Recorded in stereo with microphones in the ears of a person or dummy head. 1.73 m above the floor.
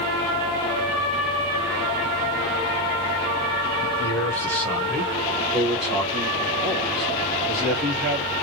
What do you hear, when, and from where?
3.8 s a man speaking: 15° left (ahead or behind), 0.8 m; by 8.4 s 5° right (ahead or behind), 3 m